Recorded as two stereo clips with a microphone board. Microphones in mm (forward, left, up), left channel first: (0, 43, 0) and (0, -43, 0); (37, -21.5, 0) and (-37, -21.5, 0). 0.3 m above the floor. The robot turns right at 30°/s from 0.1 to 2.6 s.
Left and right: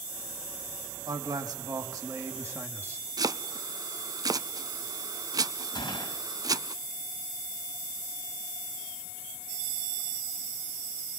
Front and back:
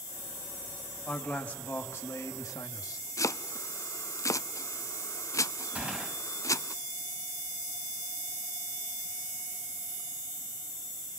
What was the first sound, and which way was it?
A man speaking, 80° right.